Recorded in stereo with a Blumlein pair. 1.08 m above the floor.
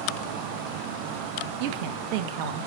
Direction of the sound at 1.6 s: 45° right.